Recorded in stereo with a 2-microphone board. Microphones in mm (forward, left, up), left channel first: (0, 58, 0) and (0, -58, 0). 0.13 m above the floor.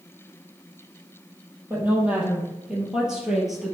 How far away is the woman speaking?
About 4 m.